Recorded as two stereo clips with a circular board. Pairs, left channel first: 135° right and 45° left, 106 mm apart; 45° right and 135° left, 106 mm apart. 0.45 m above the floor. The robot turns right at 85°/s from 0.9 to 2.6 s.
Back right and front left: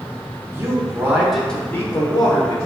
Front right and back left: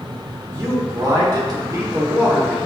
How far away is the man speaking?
About 1.0 m.